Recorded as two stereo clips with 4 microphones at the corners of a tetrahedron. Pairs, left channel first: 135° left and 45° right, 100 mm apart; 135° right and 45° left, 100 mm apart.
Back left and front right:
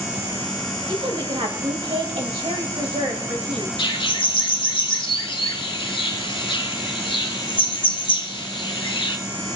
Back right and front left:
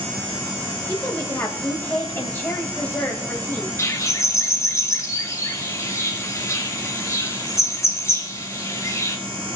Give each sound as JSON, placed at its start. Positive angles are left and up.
{"t": 0.9, "sound": "a woman speaking", "azimuth_deg": -65, "distance_m": 2.5}
{"t": 3.8, "sound": "a bird", "azimuth_deg": 165, "distance_m": 1.2}